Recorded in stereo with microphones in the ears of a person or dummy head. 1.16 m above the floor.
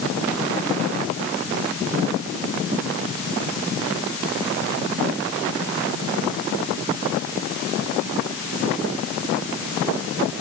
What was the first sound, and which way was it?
Only background noise.